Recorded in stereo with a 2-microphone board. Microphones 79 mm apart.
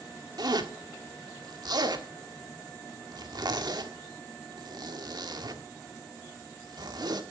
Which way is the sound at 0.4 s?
60° right (ahead or behind).